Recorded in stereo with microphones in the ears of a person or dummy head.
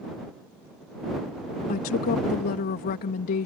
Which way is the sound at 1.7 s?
55° left (ahead or behind).